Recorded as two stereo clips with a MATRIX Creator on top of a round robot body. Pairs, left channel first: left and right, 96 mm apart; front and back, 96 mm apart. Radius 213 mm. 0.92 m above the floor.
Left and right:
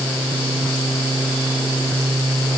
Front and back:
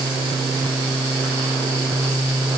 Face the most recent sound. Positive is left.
No sound to turn to.